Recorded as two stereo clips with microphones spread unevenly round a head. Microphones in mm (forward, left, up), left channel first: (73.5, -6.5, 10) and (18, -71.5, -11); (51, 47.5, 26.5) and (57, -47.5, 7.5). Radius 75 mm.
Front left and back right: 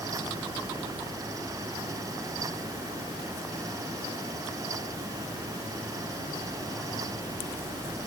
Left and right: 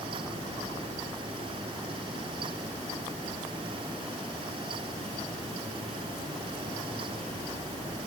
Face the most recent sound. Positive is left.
No sound to turn to.